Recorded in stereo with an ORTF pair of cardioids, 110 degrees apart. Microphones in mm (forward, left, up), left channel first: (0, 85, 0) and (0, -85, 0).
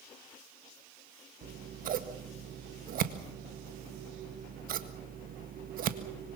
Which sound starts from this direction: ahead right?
Scissors, at 1.4 s.